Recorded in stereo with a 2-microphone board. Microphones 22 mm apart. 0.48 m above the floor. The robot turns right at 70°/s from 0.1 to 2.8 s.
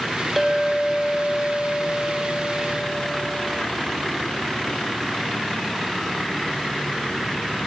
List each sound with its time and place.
0.4 s a clink: 5° right, 1.1 m; by 3.6 s 165° left, 1.1 m